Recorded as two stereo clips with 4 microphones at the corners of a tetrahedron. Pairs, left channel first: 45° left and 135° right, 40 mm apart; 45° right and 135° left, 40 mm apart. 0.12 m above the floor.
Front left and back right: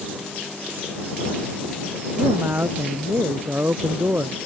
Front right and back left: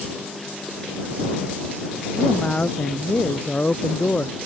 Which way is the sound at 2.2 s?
105° right.